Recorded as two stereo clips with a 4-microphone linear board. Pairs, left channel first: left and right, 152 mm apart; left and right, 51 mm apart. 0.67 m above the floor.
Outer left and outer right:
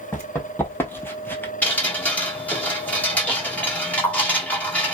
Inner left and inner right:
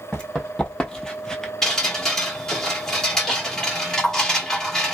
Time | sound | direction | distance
0.1 | running footsteps | 15° left (ahead or behind) | 1.5 m
1.6 | dripping | 10° left (ahead or behind) | 1.3 m